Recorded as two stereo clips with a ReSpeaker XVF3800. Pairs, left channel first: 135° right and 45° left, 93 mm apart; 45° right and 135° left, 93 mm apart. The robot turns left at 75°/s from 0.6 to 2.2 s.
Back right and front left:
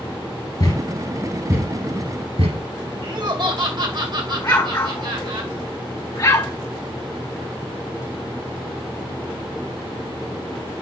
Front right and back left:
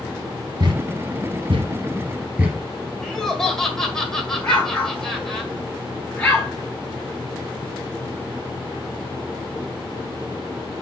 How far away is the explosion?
About 2 m.